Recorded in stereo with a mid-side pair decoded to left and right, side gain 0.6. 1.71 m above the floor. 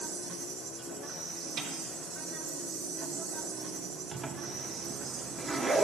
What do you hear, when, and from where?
0.0 s an insect: 70° right, 3.5 m
1.6 s a snare drum: 70° right, 5.5 m
4.1 s a zipper: 30° right, 1.3 m